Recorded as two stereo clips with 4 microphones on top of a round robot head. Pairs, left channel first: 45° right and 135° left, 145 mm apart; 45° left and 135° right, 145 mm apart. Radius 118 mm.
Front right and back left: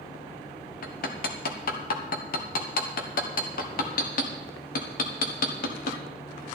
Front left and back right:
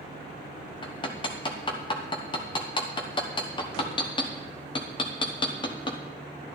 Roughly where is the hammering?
Ahead.